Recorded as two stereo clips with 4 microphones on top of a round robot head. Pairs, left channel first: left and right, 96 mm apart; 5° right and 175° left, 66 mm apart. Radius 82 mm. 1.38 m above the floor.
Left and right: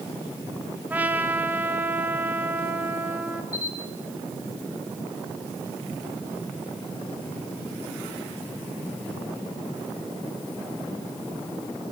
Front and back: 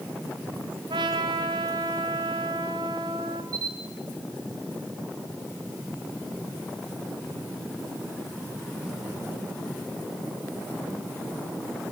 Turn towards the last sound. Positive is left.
turn(degrees=145)